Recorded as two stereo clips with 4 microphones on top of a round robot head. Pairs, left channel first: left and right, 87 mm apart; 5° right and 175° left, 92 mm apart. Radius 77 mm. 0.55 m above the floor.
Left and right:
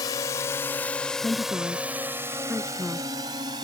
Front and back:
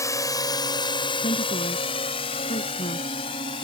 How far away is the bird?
I don't hear a bird.